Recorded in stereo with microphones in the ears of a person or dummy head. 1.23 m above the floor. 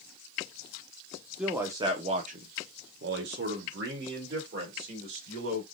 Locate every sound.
1.4 s a man speaking: 5° right (ahead or behind), 0.8 m; by 5.6 s 60° right (ahead or behind), 2 m